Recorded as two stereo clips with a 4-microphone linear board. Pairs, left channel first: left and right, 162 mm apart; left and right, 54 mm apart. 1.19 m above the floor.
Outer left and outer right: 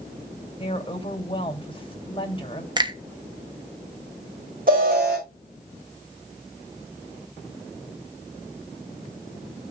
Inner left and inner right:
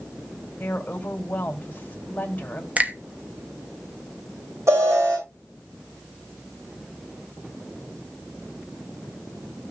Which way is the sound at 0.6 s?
35° left (ahead or behind).